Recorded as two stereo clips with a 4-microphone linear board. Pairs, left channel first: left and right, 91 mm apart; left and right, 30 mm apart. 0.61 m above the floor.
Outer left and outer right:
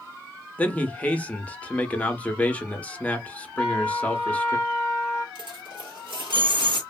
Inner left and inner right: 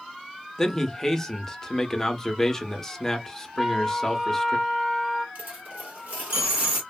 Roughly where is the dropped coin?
Right.